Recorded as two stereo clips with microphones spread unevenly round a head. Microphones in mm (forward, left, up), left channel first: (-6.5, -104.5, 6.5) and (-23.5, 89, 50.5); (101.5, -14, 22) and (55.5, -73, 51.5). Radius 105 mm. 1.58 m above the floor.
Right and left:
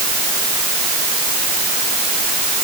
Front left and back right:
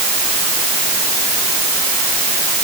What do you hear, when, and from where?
Only background noise.